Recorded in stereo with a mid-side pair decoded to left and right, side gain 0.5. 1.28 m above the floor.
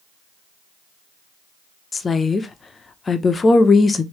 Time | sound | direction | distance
1.9 | a woman speaking | 30° left | 0.7 m